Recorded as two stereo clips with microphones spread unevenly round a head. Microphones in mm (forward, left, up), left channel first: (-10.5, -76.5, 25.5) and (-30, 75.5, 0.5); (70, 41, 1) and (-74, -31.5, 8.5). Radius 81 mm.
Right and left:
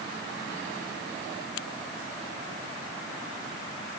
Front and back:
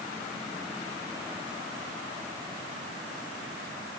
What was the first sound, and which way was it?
Only background noise.